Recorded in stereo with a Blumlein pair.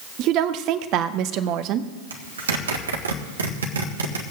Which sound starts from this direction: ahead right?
A woman speaking, at 0.2 s.